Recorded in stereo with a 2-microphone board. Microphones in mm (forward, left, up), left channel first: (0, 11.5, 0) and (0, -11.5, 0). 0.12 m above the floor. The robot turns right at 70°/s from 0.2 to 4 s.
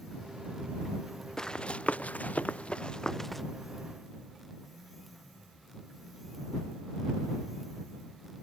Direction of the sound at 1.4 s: 25° left (ahead or behind).